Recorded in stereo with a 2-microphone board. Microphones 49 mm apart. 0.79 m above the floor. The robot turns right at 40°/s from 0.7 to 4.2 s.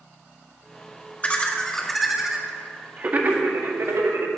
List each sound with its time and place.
1.2 s laughter: 30° left (ahead or behind), 1.3 m; by 4.3 s 65° right (ahead or behind), 1.3 m